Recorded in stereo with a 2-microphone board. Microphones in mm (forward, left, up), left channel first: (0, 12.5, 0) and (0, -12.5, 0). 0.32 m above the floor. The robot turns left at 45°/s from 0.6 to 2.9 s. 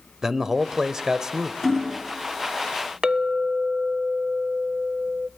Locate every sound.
0.2 s a man speaking: 20° right (ahead or behind), 0.9 m; by 1.5 s 25° right (ahead or behind), 0.9 m
1.6 s hammering: centre (ahead or behind), 2.5 m; by 2.0 s 20° left (ahead or behind), 2.5 m
3.0 s a clink: 35° right (ahead or behind), 0.6 m